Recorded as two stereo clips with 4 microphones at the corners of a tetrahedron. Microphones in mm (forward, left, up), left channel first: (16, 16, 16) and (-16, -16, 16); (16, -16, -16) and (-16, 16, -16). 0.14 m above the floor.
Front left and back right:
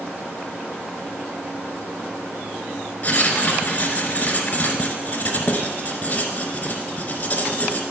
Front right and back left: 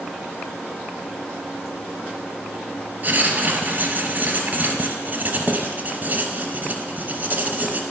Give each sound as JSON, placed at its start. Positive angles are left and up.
{"t": 3.0, "sound": "writing", "azimuth_deg": 95, "distance_m": 1.0}